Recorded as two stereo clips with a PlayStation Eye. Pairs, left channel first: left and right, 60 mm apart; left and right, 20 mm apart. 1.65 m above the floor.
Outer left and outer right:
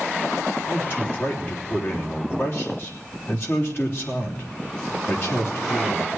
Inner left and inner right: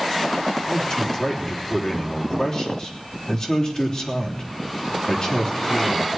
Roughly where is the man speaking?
Left.